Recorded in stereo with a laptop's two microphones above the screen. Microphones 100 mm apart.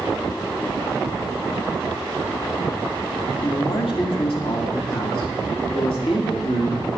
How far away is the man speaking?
About 1.8 m.